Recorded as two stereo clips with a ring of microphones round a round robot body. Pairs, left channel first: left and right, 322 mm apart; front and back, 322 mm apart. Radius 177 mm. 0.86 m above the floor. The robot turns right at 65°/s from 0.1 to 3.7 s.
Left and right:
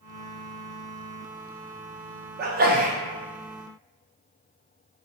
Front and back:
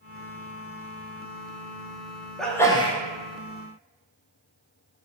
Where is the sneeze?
90° right, 0.6 m; by 3.0 s 50° right, 0.6 m.